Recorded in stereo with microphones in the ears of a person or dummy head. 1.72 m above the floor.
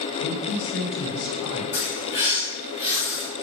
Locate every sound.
0.2 s a man speaking: 75° left (ahead or behind), 1.3 m
1.7 s a bird: 25° left (ahead or behind), 1.3 m